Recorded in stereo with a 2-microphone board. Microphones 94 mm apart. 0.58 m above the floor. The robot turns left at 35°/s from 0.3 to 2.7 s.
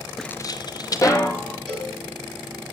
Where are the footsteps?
Centre (ahead or behind), 0.6 m; by 1.6 s 15° left (ahead or behind), 2 m.